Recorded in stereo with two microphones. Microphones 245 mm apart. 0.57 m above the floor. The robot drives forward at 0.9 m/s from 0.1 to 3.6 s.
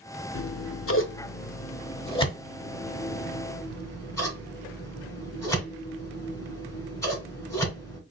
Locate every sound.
0.3 s scissors: 60° left (ahead or behind), 0.6 m; by 8.0 s 10° left (ahead or behind), 2.5 m